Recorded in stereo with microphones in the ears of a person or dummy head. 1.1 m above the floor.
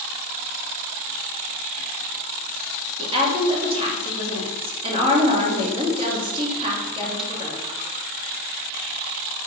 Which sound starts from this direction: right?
A woman speaking, at 3.0 s.